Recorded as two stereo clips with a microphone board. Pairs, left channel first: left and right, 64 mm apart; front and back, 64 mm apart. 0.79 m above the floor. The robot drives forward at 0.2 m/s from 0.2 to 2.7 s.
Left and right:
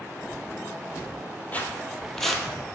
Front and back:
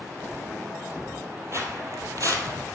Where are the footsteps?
150° left, 1.4 m; by 2.5 s 175° right, 1.4 m.